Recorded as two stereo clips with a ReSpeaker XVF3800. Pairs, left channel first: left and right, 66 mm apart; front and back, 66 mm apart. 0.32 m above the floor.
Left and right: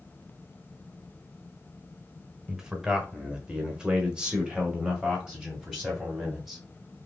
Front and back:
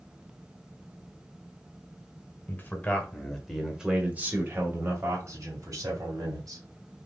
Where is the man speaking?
10° right, 1.4 m; by 6.6 s 170° right, 2.5 m.